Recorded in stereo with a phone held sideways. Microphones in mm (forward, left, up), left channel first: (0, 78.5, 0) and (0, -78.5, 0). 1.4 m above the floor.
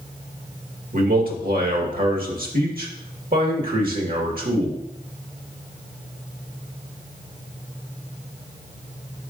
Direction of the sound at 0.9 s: 65° right (ahead or behind).